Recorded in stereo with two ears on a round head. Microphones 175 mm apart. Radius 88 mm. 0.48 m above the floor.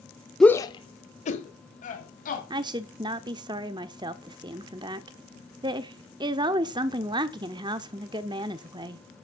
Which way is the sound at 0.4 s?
5° left (ahead or behind).